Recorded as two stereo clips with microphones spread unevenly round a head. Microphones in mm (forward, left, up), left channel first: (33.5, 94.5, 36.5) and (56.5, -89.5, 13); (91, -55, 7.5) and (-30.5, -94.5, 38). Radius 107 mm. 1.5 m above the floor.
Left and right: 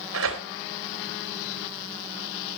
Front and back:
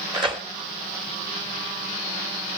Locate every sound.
0.1 s tearing paper: 115° right, 2.5 m